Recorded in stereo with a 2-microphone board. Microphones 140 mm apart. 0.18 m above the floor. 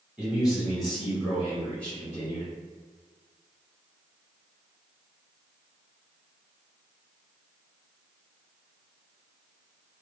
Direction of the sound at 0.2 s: 10° right (ahead or behind).